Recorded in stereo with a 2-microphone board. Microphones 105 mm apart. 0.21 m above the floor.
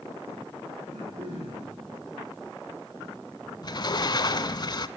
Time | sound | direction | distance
0.8 | throat clearing | 80° right | 6.5 m
3.6 | a sliding door | 45° left (ahead or behind) | 0.6 m